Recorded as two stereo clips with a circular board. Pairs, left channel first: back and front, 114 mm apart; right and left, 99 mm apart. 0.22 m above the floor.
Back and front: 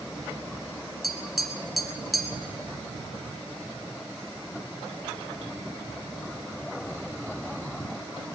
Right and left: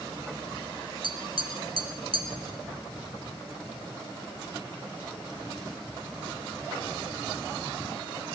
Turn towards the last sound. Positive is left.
turn(degrees=90)